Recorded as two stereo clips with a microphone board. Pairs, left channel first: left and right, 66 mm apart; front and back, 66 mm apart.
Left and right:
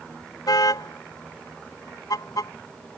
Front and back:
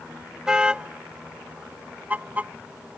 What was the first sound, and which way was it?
A car horn, 100° left.